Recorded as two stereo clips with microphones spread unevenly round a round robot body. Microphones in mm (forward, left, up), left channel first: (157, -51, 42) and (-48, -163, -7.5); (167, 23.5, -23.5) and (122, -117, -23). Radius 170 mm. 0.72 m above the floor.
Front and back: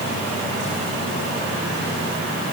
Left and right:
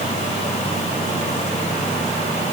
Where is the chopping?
I don't hear chopping.